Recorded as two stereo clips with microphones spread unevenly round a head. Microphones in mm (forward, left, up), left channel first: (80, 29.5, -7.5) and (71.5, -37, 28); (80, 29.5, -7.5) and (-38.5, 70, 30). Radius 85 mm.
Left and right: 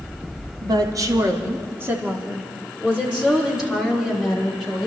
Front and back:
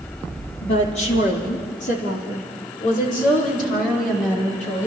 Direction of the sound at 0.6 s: 65° right.